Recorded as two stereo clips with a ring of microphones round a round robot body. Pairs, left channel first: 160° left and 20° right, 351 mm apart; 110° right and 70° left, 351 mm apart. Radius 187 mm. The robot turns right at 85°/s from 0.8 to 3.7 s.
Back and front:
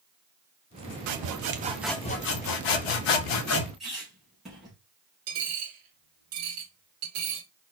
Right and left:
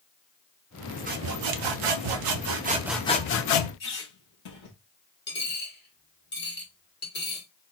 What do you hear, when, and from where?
1.1 s sawing: straight ahead, 0.7 m; by 3.7 s 135° right, 0.7 m
3.8 s a squeak: 110° right, 3 m
5.3 s a dropped coin: 50° right, 2 m